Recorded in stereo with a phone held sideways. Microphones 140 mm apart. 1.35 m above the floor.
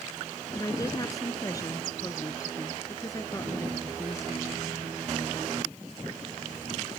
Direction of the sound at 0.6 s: 25° left (ahead or behind).